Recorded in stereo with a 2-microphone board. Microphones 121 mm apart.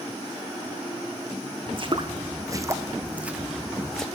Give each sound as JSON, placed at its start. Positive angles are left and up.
{"t": 1.7, "sound": "footsteps", "side_deg": -50, "distance_m": 1.4}